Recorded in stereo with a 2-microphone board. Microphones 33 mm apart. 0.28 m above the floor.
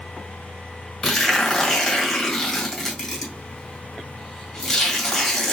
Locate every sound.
1.0 s tearing paper: 5° left (ahead or behind), 2 m